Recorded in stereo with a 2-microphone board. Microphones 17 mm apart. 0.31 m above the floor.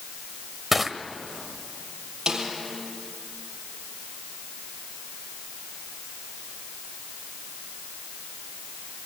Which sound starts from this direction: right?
A snare drum, at 2.3 s.